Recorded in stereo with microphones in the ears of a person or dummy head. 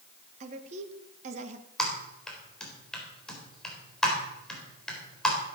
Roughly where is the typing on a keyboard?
Centre.